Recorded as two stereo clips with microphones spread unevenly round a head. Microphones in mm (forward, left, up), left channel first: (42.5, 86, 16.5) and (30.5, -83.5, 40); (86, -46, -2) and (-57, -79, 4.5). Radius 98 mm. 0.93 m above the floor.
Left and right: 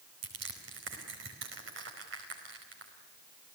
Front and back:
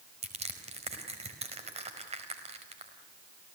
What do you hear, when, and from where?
0.2 s crushing: 120° right, 4.5 m